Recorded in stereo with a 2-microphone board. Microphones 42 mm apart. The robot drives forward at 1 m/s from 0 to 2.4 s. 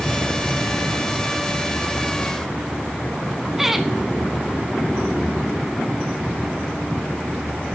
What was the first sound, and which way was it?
Laughter, 5° right (ahead or behind).